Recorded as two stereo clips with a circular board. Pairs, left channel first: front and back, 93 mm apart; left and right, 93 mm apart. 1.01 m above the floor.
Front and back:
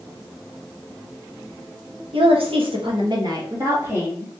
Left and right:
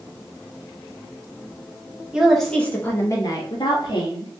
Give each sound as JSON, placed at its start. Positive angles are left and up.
{"t": 2.1, "sound": "a woman speaking", "azimuth_deg": -170, "distance_m": 1.1}